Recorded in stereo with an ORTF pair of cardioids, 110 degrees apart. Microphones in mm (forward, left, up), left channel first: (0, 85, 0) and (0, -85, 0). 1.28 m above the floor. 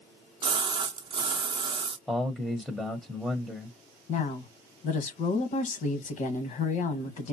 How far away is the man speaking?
About 0.9 m.